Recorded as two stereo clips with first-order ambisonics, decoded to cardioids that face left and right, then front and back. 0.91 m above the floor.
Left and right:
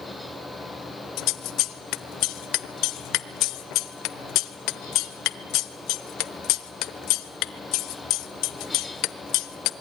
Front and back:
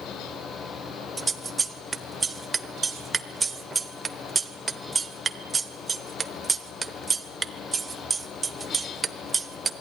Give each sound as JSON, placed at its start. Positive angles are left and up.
{"t": 1.2, "sound": "scissors", "azimuth_deg": 105, "distance_m": 0.9}